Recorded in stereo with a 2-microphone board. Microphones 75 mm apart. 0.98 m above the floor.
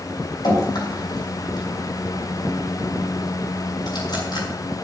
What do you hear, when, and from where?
0.4 s dripping: 65° left (ahead or behind), 5.5 m